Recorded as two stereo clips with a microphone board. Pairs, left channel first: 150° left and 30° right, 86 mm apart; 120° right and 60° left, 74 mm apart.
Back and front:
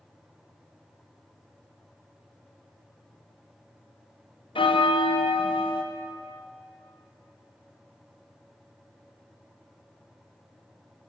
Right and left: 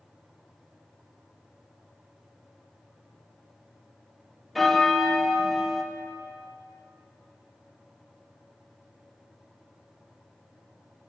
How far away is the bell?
About 0.7 m.